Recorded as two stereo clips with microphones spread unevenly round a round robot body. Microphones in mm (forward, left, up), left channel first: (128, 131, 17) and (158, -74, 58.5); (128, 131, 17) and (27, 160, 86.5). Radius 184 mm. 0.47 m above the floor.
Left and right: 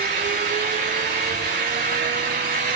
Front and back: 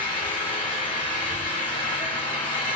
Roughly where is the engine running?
Ahead right.